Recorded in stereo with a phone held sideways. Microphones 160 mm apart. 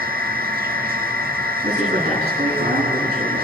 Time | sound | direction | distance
0.0 | a machine running | 75° right (ahead or behind) | 2.5 m
1.6 | a man speaking | 50° right (ahead or behind) | 9 m